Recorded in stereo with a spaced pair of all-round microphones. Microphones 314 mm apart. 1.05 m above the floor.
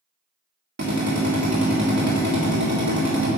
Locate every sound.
0.8 s a drill: 60° right (ahead or behind), 2.5 m